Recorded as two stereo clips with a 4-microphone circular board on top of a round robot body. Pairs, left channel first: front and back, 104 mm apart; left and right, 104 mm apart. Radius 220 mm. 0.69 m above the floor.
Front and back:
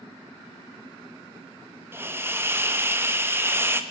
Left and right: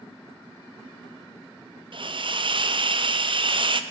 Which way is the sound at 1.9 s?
115° right.